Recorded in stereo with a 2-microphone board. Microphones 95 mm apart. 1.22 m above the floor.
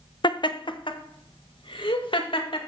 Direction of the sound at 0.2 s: 55° left (ahead or behind).